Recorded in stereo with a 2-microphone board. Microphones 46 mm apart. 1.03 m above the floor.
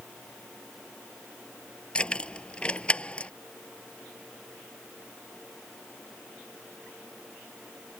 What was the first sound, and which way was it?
Keys jangling, 20° left (ahead or behind).